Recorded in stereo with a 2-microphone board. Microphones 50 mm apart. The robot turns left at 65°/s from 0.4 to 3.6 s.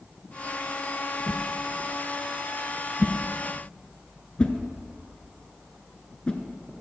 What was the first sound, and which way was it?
A whoosh, 35° right (ahead or behind).